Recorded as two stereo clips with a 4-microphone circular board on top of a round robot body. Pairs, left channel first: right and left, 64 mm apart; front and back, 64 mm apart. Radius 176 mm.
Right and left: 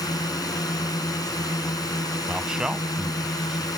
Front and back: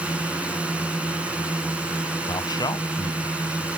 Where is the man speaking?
10° left.